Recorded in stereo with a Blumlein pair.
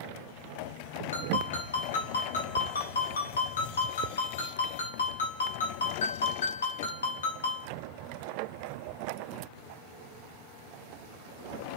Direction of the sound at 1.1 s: 65° left.